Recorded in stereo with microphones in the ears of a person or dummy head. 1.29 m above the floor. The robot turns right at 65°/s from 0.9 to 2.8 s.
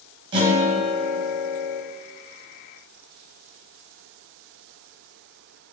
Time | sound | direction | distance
0.3 | a guitar | 130° right | 1.3 m